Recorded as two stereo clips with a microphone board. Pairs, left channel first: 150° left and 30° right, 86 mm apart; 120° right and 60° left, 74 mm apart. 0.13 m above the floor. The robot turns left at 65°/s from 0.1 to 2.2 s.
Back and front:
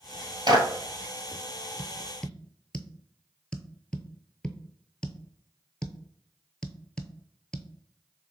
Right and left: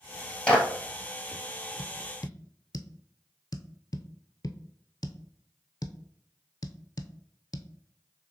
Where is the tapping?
105° right, 0.5 m; by 7.7 s 130° right, 0.5 m.